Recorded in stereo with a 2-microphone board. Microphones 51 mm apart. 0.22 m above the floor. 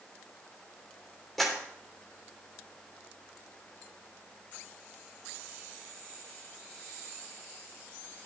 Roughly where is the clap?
Centre.